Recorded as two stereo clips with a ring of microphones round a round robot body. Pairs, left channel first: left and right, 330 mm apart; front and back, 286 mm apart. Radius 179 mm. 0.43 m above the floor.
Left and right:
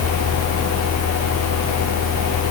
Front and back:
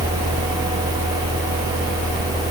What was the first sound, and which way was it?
Only background noise.